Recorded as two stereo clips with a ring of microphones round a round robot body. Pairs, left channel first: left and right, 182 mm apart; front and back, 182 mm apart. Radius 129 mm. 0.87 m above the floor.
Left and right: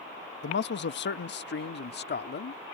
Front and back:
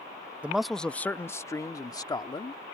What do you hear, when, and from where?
0.4 s a man speaking: 100° left; by 2.6 s 65° left